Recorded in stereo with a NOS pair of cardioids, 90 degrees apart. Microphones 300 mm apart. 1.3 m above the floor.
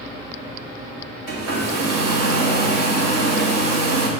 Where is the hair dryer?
55° right, 2.5 m.